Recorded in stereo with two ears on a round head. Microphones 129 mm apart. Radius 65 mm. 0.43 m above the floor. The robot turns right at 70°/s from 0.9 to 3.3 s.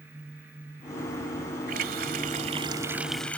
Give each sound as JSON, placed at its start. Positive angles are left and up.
{"t": 1.7, "sound": "a running tap", "azimuth_deg": -105}